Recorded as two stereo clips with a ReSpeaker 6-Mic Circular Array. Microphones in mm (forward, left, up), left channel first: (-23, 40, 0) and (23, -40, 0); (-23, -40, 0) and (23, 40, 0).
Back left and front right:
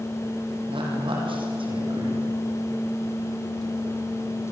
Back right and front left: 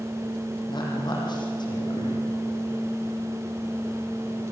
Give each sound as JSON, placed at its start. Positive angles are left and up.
{"t": 0.7, "sound": "a woman speaking", "azimuth_deg": -85, "distance_m": 7.5}